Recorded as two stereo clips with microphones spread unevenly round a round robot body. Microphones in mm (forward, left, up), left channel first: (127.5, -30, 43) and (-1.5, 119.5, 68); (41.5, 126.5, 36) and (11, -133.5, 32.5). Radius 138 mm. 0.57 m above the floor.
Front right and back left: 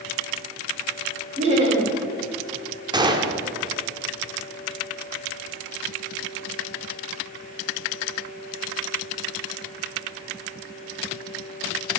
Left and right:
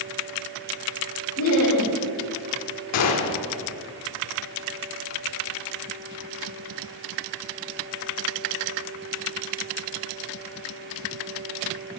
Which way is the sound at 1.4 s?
70° left.